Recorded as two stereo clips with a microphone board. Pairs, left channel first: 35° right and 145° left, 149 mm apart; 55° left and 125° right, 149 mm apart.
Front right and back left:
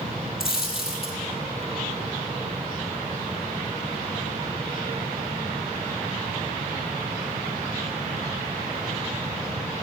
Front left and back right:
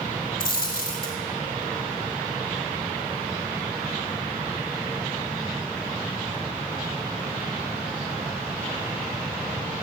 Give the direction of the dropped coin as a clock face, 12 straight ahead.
10 o'clock.